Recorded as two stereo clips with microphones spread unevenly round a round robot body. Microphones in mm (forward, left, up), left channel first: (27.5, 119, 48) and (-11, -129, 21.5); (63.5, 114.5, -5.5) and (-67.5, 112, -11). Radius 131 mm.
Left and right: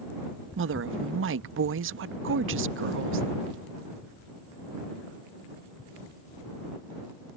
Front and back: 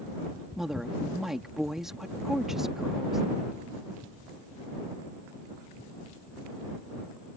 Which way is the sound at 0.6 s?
95° right.